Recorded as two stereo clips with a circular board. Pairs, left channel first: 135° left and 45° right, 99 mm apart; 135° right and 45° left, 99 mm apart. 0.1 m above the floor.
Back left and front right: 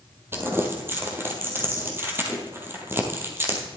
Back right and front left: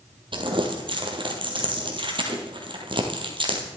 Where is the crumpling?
20° left, 2 m.